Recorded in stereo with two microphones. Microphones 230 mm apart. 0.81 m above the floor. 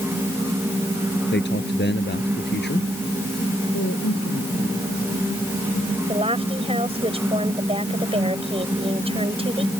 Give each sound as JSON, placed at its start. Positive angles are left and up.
{"t": 1.3, "sound": "a man speaking", "side_deg": 50}
{"t": 3.7, "sound": "a woman speaking", "side_deg": 80}
{"t": 6.1, "sound": "a woman speaking", "side_deg": -25}